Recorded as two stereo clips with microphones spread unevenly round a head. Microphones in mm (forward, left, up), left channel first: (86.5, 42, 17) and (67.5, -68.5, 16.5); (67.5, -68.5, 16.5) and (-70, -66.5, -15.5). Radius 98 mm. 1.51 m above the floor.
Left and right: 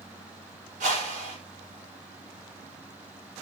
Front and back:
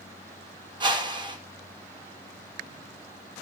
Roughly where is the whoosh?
Behind right.